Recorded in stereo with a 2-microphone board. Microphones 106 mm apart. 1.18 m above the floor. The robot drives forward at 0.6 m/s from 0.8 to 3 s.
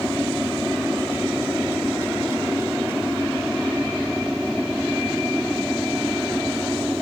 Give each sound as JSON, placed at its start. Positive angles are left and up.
{"t": 0.0, "sound": "an aircraft", "side_deg": -5}